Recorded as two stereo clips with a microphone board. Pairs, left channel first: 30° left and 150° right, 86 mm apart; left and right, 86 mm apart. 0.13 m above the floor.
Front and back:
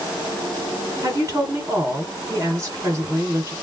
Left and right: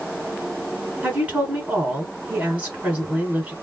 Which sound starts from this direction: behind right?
A woman speaking, at 1.0 s.